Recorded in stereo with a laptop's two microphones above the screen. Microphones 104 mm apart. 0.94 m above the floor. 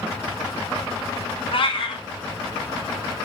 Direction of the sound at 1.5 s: 60° left (ahead or behind).